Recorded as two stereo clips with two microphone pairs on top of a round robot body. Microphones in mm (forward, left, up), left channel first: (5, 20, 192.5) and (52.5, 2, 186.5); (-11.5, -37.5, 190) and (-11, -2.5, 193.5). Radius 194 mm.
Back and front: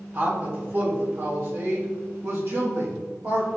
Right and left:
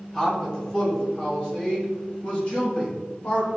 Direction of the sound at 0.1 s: 30° right.